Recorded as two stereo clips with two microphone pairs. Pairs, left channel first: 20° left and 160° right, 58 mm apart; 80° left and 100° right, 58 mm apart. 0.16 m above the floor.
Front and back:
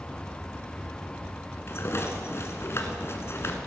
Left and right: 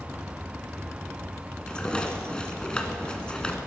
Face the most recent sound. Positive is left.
turn(degrees=10)